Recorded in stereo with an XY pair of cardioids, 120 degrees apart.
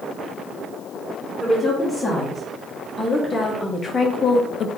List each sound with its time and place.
1.4 s a woman speaking: 10° left, 1.9 m; by 4.7 s 65° left, 0.5 m